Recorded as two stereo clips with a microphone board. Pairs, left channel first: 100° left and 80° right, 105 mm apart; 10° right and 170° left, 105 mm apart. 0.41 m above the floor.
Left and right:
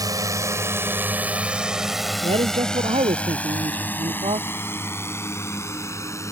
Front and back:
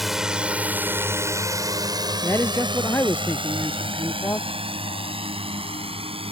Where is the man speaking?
75° right.